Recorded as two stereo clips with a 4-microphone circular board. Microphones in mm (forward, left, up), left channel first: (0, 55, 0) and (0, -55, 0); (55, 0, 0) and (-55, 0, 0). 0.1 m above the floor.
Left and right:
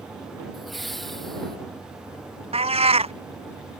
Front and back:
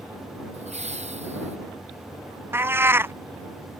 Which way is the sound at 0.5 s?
Straight behind.